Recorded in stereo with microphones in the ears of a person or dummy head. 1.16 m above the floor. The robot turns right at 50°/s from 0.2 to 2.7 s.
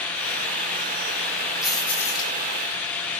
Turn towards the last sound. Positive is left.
turn(degrees=50)